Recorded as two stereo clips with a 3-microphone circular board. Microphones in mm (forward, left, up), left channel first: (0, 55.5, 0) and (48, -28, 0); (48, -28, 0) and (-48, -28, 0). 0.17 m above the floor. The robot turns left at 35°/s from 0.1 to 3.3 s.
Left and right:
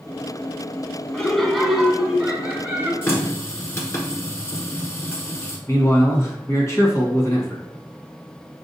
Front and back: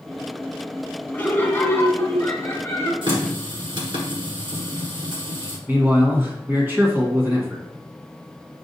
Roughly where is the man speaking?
Behind left.